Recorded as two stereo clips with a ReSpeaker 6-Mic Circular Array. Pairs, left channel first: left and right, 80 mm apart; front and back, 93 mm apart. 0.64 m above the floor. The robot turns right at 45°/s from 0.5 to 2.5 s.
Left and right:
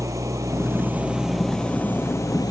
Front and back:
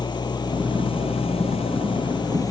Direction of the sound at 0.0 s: 40° right.